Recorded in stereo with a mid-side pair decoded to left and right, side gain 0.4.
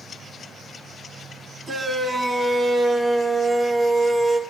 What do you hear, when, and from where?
1.7 s a shout: 50° right, 4.5 m; by 4.4 s 35° right, 3.5 m